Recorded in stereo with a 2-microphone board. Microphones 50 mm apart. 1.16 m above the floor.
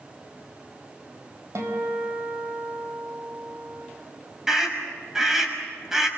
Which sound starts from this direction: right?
A guitar, at 1.6 s.